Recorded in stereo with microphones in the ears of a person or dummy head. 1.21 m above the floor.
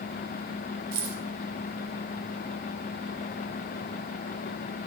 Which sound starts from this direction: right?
Keys jangling, at 0.9 s.